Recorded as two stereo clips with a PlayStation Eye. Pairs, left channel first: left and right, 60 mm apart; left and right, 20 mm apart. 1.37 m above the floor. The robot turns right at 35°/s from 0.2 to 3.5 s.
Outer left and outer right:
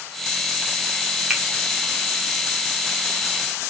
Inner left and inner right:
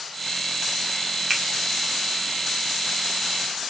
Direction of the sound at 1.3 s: 10° right (ahead or behind).